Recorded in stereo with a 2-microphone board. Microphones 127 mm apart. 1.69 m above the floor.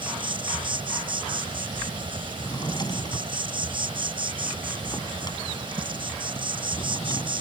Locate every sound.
0.0 s an insect: 40° right (ahead or behind)
2.4 s a drawer: 35° left (ahead or behind)